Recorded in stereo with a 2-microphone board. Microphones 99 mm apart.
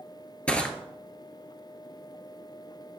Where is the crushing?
10° left (ahead or behind), 0.8 m.